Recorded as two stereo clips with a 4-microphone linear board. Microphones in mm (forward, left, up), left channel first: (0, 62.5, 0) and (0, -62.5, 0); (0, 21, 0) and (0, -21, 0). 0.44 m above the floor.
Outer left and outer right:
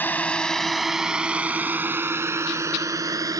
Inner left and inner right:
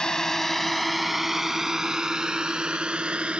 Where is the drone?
15° left (ahead or behind); by 3.4 s 30° right (ahead or behind).